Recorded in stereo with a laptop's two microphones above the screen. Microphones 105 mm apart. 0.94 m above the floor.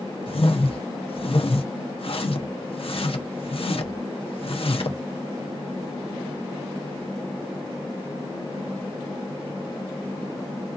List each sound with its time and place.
0.3 s a whoosh: 60° left (ahead or behind), 0.8 m